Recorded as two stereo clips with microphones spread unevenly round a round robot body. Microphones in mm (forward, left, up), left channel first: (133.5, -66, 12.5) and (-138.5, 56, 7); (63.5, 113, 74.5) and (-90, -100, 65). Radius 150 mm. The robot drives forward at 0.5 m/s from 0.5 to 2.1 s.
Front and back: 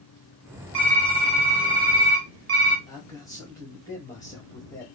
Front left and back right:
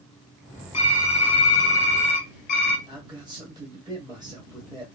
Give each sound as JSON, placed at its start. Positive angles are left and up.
{"t": 0.7, "sound": "typing on a keyboard", "azimuth_deg": 70, "distance_m": 1.3}
{"t": 2.9, "sound": "a man speaking", "azimuth_deg": -90, "distance_m": 1.4}